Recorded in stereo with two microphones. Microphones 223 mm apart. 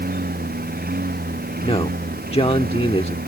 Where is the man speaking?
25° left (ahead or behind).